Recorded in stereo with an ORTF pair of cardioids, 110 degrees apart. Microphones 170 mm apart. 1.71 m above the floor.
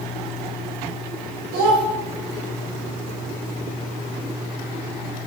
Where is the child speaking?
70° right, 1.4 m.